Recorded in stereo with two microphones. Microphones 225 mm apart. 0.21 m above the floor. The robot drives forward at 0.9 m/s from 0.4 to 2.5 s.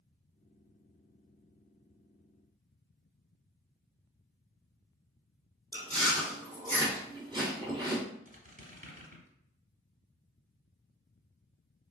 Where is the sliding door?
No sliding door in this recording.